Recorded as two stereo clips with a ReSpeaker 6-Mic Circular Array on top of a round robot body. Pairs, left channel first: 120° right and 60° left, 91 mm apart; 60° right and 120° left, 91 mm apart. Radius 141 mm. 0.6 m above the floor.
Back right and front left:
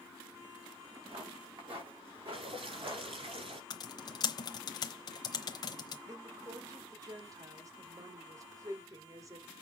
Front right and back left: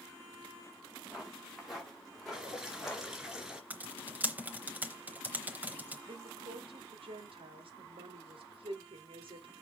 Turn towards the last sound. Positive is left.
turn(degrees=110)